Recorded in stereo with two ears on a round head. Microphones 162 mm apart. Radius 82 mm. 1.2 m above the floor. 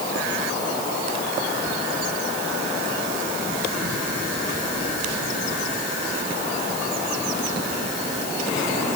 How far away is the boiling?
No boiling in this recording.